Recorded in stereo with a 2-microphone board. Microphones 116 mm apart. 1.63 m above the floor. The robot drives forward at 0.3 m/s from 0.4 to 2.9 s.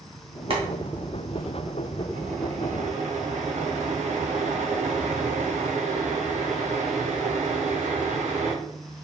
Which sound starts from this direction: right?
Boiling, at 0.5 s.